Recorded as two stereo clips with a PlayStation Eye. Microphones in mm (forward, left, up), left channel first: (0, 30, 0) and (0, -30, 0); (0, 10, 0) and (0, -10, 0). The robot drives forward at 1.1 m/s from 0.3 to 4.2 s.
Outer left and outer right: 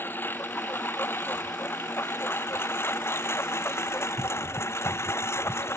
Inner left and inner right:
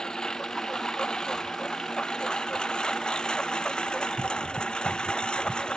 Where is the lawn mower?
35° left (ahead or behind); by 5.8 s 45° left (ahead or behind).